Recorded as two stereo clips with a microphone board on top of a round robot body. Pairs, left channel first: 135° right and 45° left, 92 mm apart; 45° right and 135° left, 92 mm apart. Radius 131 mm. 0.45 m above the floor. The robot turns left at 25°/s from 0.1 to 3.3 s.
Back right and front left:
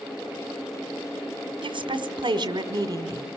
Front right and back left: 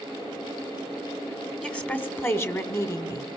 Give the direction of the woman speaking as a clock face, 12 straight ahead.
11 o'clock.